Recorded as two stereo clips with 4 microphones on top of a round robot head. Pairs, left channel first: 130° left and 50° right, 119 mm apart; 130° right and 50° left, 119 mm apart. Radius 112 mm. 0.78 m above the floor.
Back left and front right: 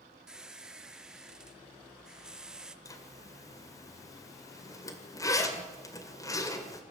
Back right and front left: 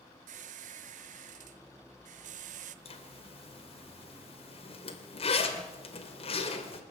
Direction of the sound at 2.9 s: 170° right.